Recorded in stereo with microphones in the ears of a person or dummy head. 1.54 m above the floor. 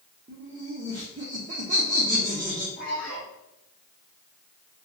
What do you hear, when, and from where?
0.3 s laughter: 35° right (ahead or behind), 0.6 m
2.8 s a man speaking: 45° left (ahead or behind), 1.4 m